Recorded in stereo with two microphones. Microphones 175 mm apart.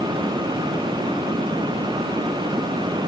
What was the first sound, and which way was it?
Only background noise.